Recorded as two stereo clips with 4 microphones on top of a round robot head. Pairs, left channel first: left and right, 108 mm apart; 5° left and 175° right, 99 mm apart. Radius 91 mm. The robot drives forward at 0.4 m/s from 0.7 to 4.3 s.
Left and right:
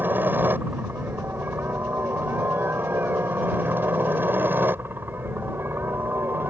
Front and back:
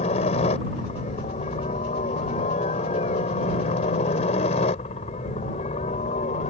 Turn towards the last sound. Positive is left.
turn(degrees=-20)